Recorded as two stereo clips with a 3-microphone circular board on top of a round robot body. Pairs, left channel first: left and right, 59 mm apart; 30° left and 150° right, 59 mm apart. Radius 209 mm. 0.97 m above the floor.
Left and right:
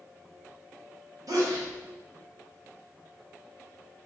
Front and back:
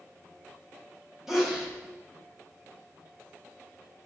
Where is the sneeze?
65° right, 1.6 m.